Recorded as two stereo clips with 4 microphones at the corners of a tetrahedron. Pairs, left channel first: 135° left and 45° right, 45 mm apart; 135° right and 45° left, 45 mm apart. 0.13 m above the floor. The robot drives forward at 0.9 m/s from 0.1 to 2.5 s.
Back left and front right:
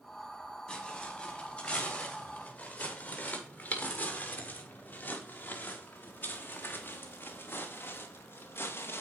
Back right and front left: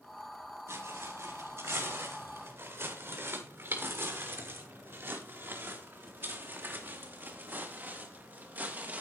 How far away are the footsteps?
About 9 m.